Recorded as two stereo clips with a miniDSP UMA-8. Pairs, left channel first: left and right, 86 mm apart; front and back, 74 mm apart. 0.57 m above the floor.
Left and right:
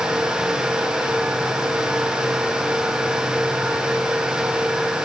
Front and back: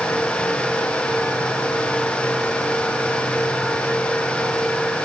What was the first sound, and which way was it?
Only background noise.